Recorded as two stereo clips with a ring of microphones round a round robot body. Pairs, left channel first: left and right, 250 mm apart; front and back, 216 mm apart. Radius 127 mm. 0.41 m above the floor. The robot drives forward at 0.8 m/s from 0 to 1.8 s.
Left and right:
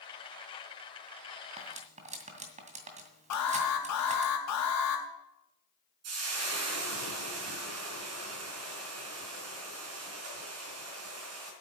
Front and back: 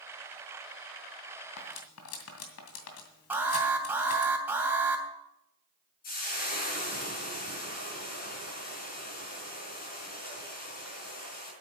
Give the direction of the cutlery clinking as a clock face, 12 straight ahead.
1 o'clock.